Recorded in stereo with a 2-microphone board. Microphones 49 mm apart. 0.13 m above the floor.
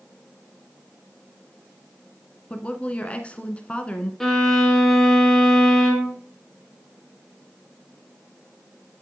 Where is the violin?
5° left (ahead or behind), 1.6 m.